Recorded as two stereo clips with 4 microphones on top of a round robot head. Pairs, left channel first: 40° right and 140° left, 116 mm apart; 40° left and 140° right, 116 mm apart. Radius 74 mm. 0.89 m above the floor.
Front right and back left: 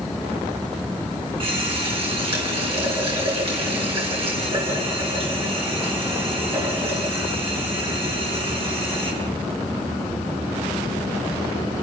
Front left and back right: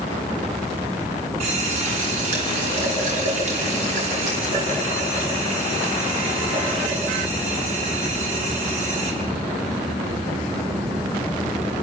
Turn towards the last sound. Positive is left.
turn(degrees=-175)